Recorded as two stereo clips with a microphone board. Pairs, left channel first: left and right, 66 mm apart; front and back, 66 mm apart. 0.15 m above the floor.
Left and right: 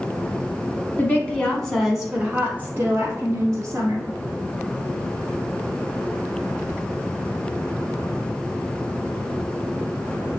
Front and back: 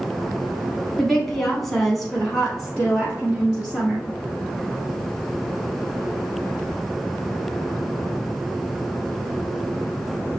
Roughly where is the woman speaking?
Left.